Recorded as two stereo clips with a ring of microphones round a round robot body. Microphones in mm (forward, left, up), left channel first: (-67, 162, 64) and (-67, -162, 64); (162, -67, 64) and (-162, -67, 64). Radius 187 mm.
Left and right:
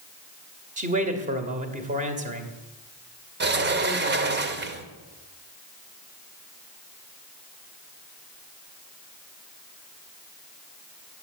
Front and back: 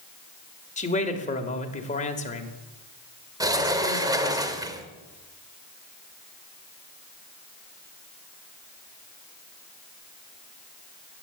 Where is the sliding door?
110° right, 1.3 m.